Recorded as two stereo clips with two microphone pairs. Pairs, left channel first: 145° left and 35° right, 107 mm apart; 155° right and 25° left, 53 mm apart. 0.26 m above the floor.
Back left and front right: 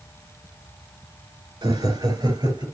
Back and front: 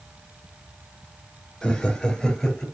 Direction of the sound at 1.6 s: 70° right.